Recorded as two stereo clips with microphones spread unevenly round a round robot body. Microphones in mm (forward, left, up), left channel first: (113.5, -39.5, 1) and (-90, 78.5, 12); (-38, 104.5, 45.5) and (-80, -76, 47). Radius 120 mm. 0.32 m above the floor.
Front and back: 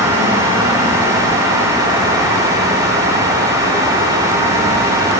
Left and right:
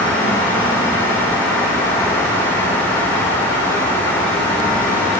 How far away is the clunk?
No clunk in this recording.